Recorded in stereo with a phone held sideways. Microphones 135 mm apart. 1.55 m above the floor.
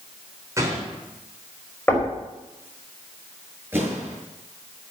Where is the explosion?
15° right (ahead or behind), 6 m.